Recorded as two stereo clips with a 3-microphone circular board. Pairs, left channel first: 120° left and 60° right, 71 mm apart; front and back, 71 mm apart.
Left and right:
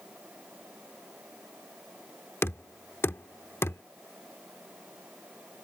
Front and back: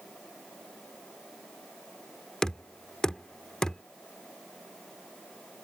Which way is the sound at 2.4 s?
75° left.